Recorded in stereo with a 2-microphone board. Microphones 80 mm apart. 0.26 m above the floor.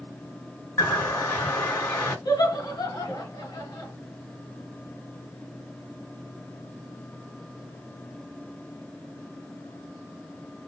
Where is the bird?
25° left (ahead or behind), 2 m.